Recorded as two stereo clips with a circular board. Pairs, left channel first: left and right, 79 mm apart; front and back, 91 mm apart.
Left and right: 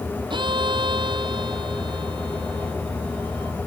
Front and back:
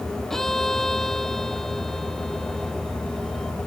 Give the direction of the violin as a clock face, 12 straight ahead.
3 o'clock.